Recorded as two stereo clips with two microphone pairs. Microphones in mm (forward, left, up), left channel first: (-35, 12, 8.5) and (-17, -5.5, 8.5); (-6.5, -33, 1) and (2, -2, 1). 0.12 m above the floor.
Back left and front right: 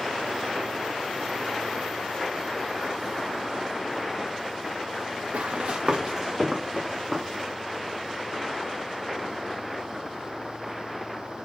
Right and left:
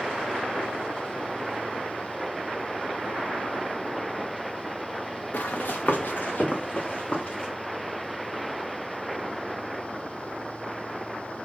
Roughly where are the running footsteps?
Right.